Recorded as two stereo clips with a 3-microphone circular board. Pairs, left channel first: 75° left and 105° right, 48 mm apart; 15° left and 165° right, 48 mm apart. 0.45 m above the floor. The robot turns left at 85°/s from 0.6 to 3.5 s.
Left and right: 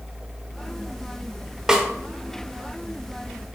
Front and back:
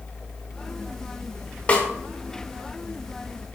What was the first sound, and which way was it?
A snare drum, 35° right.